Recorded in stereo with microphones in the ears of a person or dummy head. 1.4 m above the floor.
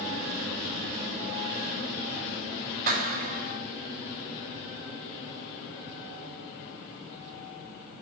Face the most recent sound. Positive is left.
turn(degrees=-50)  # may be behind; listen again after turning